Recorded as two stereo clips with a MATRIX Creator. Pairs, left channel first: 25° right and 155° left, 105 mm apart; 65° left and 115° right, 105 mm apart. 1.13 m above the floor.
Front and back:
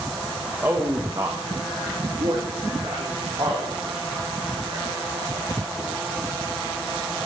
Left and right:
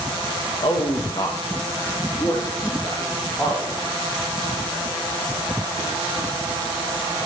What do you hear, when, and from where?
0.6 s a man speaking: 90° left, 1.6 m; by 5.9 s 135° left, 6.5 m